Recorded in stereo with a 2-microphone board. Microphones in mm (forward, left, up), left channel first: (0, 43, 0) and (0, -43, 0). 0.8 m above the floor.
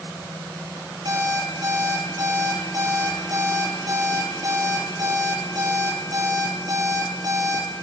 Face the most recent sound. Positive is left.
turn(degrees=-45)  # may be behind; listen again after turning